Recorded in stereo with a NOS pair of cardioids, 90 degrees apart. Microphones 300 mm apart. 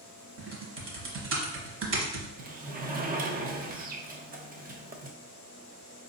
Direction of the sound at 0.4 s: 40° right.